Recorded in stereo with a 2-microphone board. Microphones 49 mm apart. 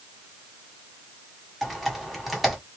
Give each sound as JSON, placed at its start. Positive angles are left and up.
{"t": 1.6, "sound": "typing on a keyboard", "side_deg": 0, "distance_m": 1.8}